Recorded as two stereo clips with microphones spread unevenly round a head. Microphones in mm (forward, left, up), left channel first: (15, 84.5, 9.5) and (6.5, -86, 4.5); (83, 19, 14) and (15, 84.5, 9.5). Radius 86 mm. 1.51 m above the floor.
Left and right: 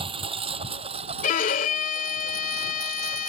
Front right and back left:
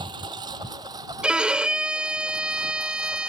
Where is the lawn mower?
155° right; by 3.3 s 150° right.